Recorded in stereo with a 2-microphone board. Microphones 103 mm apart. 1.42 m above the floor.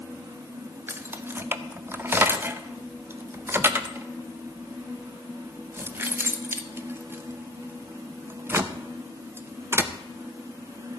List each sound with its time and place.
0.9 s keys jangling: 25° right (ahead or behind), 0.7 m